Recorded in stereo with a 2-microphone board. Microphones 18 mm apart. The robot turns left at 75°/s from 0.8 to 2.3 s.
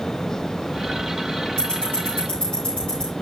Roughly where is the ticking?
Left.